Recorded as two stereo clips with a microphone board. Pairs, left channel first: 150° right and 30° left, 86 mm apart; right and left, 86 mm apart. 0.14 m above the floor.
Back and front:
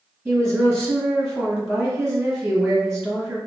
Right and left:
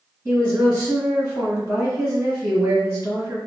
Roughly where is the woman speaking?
Behind left.